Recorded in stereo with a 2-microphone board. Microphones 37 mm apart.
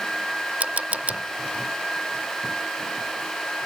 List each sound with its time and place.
0.6 s a camera shutter: 40° right (ahead or behind)